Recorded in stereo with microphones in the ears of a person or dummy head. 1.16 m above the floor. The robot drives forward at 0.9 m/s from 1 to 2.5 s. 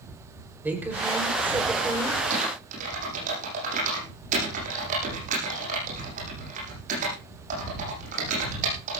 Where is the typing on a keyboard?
45° right (ahead or behind), 9.5 m.